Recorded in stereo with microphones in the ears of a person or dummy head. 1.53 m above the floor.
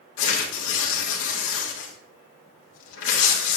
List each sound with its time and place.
0.2 s tearing paper: 80° left, 1.9 m